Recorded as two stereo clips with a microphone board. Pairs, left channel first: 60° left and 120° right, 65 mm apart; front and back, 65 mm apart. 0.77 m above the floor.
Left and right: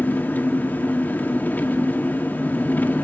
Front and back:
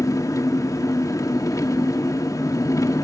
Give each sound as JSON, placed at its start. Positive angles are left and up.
{"t": 0.0, "sound": "an engine running", "azimuth_deg": 5, "distance_m": 1.6}